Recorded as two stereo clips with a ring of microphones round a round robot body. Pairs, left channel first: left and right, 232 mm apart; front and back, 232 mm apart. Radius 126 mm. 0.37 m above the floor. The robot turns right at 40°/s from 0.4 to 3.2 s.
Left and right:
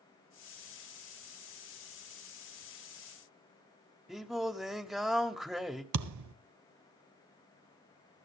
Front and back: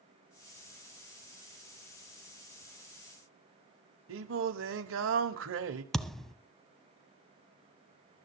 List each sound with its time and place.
4.1 s singing: straight behind, 1.1 m
5.9 s a thud: 90° right, 0.8 m